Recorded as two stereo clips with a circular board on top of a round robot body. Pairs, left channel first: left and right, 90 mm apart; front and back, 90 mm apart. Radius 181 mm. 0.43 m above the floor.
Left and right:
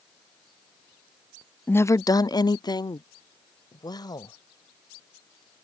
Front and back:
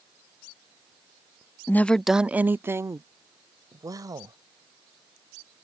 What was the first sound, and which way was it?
A woman speaking, 40° left.